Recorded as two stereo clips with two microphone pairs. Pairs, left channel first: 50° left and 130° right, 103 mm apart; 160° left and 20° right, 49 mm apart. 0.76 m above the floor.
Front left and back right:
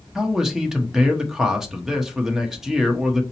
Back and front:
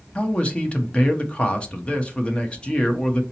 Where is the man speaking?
150° left, 0.7 m.